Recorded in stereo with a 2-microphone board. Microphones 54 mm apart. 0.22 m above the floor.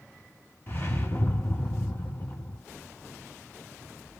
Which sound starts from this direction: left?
A whoosh, at 0.7 s.